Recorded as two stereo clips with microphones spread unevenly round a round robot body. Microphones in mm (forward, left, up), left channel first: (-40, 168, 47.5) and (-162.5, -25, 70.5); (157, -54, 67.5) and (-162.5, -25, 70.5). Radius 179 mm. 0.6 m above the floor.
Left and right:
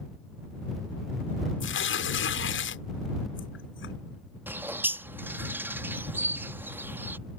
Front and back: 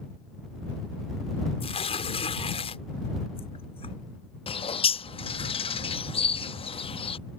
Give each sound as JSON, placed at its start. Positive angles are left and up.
{"t": 1.6, "sound": "tearing paper", "azimuth_deg": 65}
{"t": 4.5, "sound": "a bird", "azimuth_deg": -40}